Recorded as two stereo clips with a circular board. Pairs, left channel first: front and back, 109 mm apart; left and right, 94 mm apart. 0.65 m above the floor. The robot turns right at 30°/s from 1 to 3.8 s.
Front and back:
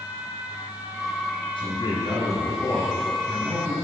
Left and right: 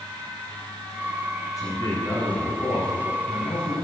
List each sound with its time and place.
1.6 s a man speaking: 35° left, 5.5 m; by 3.7 s 105° left, 5.5 m